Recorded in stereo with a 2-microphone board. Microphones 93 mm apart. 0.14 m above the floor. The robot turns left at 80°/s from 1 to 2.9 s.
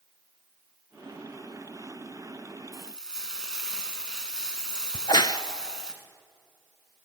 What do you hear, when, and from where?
2.7 s frying: centre (ahead or behind), 1.6 m; by 5.9 s 10° right (ahead or behind), 1.6 m
4.9 s a crack: 55° left (ahead or behind), 0.5 m